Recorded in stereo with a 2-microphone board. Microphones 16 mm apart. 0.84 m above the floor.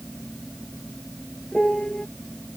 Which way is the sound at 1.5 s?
80° left.